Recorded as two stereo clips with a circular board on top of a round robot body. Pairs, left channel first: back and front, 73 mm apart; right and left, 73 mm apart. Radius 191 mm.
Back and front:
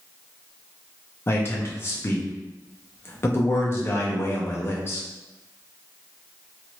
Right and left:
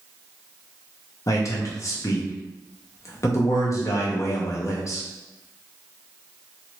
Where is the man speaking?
130° right, 0.8 m.